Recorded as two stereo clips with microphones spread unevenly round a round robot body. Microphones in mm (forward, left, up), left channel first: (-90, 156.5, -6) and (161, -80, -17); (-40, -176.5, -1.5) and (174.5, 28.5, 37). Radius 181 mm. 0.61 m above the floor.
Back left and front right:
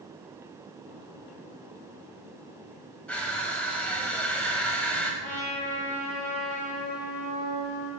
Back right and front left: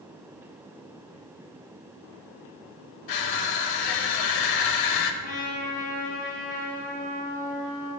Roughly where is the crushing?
Behind right.